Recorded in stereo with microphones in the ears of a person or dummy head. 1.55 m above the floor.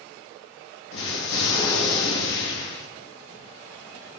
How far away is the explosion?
About 1.8 m.